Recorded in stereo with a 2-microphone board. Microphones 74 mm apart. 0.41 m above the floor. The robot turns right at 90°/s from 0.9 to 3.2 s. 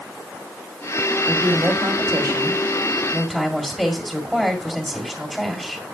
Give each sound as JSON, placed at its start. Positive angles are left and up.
{"t": 1.3, "sound": "a woman speaking", "azimuth_deg": -165, "distance_m": 1.9}